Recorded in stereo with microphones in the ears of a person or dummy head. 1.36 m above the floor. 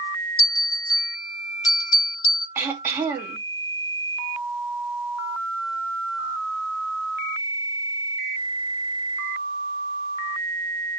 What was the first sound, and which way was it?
A bell, 20° left (ahead or behind).